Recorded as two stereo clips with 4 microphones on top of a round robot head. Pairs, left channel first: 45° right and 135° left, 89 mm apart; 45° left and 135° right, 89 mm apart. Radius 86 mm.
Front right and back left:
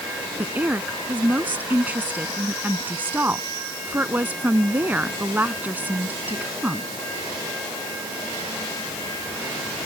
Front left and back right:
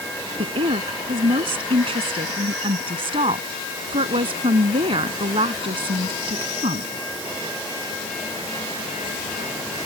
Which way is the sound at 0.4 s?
155° right.